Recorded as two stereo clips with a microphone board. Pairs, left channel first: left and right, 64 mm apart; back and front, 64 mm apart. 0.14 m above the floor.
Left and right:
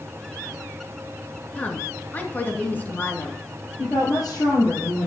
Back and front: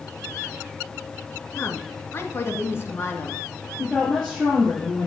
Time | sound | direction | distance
1.6 | a woman speaking | 145° left | 2.0 m
3.8 | a woman speaking | 95° left | 5 m